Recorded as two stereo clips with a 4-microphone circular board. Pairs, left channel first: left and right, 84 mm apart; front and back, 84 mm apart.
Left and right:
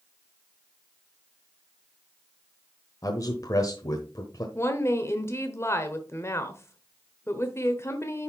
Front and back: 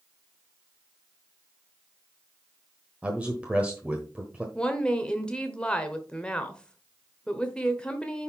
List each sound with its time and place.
3.0 s a man speaking: 110° left, 1.1 m
4.5 s a woman speaking: 65° left, 1.1 m